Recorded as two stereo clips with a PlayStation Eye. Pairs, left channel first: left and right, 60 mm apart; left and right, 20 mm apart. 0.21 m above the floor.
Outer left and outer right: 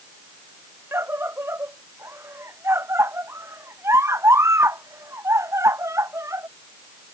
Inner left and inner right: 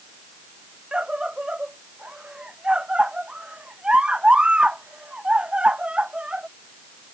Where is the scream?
45° right (ahead or behind); by 6.5 s 55° right (ahead or behind).